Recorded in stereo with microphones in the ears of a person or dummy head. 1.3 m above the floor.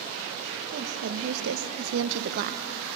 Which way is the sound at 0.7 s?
55° right (ahead or behind).